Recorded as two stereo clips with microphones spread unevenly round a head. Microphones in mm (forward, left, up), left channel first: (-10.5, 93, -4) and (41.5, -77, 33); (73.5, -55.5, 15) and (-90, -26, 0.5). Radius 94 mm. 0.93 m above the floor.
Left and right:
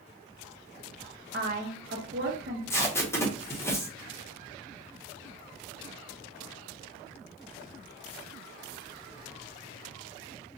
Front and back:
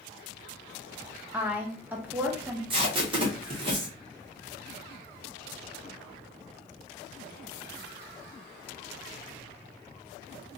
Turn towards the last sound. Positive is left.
turn(degrees=155)